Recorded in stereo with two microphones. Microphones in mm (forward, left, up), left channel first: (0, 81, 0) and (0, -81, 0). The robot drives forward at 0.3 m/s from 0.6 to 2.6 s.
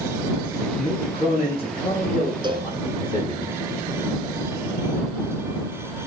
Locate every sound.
0.8 s a man speaking: 35° left (ahead or behind), 7 m
2.4 s a cowbell: 30° right (ahead or behind), 1.3 m